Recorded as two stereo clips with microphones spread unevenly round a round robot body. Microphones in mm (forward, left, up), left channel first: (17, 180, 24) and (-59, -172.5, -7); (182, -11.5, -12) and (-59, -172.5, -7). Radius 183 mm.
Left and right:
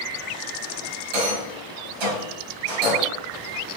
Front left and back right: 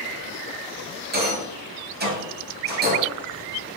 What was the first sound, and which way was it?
A rattle, 85° right.